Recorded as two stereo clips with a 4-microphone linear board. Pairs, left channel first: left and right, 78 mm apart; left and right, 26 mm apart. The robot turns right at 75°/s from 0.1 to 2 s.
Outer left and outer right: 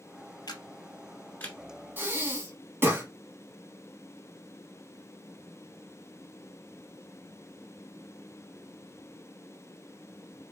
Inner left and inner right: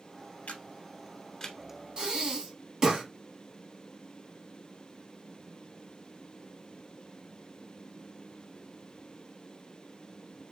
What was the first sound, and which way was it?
A camera shutter, 60° left (ahead or behind).